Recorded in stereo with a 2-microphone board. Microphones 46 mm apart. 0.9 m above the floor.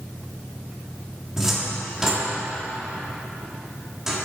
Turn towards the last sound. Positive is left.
turn(degrees=-10)  # may be behind; listen again after turning